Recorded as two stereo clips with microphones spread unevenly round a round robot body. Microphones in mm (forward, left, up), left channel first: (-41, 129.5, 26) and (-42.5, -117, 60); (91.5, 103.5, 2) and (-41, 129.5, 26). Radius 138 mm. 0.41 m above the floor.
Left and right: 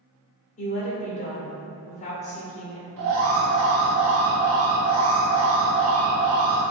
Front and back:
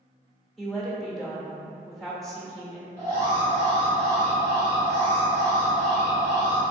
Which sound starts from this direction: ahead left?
A woman speaking, at 0.6 s.